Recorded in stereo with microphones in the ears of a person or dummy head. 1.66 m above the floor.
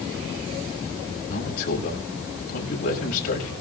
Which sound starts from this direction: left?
A man speaking, at 1.3 s.